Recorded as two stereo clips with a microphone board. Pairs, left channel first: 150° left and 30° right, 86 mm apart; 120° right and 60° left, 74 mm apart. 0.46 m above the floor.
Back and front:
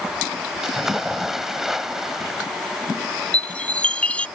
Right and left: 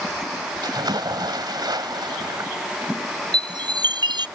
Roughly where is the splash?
Ahead left.